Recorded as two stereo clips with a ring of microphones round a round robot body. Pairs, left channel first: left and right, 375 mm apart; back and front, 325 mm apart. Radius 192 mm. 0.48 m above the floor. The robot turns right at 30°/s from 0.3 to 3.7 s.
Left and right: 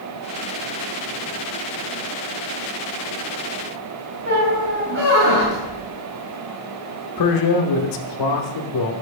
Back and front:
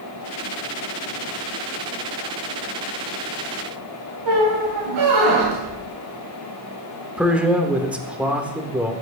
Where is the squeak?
30° right, 2 m.